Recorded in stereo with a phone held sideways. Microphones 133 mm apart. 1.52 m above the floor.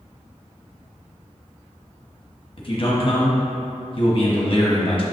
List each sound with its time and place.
2.6 s a man speaking: 45° left (ahead or behind), 1.2 m